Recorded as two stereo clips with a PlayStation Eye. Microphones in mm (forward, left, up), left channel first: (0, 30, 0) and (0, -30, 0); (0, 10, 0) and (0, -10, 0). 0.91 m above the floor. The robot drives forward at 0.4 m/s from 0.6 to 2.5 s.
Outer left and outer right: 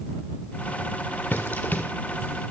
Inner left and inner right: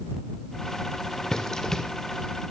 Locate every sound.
1.3 s running footsteps: 35° left (ahead or behind), 1.3 m; by 1.9 s 30° left (ahead or behind), 1.4 m